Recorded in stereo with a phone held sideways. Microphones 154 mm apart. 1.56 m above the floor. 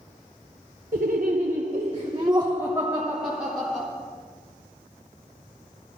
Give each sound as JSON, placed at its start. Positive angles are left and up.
{"t": 0.9, "sound": "laughter", "side_deg": -70, "distance_m": 1.1}